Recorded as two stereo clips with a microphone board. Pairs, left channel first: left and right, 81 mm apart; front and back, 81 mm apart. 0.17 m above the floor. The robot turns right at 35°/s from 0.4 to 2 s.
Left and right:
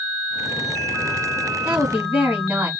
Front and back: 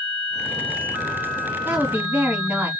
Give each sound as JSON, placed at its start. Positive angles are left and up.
{"t": 1.6, "sound": "a woman speaking", "azimuth_deg": -145, "distance_m": 1.2}